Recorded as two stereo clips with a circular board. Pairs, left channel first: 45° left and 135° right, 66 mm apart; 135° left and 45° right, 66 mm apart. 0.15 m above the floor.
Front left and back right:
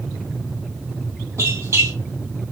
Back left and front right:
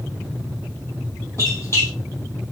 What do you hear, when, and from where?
1.4 s a squeak: straight behind, 3 m